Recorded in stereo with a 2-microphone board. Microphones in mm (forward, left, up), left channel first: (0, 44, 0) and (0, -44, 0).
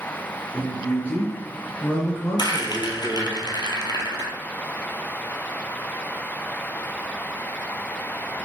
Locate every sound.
0.5 s a man speaking: 15° left (ahead or behind), 2 m
2.4 s a rattle: 55° left (ahead or behind), 0.7 m